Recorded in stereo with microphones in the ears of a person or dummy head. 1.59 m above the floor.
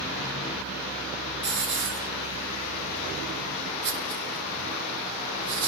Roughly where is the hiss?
Right.